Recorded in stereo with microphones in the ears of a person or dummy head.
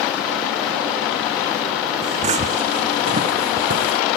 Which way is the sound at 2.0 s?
40° right (ahead or behind).